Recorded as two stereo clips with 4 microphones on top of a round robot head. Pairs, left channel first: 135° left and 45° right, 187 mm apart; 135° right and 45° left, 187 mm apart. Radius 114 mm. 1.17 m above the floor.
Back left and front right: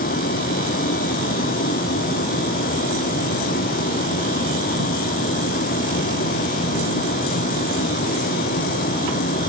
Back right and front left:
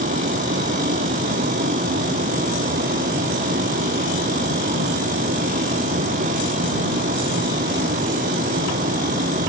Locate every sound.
0.0 s a vehicle: 90° left